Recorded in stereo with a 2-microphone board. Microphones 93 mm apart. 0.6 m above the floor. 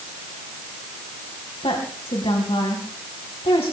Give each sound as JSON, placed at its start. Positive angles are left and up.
{"t": 1.6, "sound": "a woman speaking", "side_deg": 80, "distance_m": 3.5}